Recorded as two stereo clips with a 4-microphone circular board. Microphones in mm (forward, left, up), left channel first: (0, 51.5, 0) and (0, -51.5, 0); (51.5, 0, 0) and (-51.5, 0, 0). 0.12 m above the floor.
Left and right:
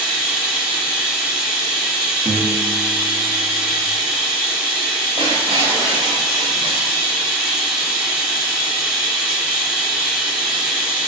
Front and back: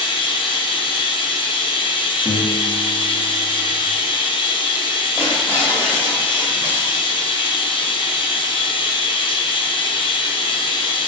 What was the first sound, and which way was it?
Running water, 5° right.